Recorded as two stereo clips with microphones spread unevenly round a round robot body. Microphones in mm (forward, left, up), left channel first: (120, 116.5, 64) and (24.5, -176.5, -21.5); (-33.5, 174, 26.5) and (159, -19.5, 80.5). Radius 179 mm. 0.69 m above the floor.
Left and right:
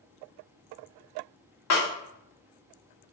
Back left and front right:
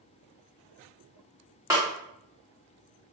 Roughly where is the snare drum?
Ahead left.